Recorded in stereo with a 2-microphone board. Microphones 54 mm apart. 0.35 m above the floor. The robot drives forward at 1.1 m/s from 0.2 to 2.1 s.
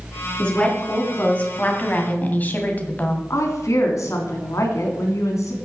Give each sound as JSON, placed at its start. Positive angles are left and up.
{"t": 0.4, "sound": "a woman speaking", "side_deg": 20, "distance_m": 4.0}
{"t": 3.3, "sound": "a woman speaking", "side_deg": 70, "distance_m": 3.0}